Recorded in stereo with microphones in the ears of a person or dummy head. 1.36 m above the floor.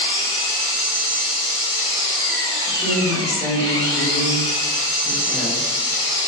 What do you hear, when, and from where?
0.0 s an engine running: 55° right (ahead or behind), 1.0 m
2.7 s a woman speaking: 15° left (ahead or behind), 1.4 m